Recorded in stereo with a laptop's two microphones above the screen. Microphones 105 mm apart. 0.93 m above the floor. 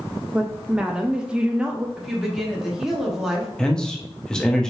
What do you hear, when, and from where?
0.3 s a woman speaking: 10° right (ahead or behind), 0.5 m
2.0 s a woman speaking: 5° right (ahead or behind), 1.3 m
3.6 s a man speaking: 5° left (ahead or behind), 0.7 m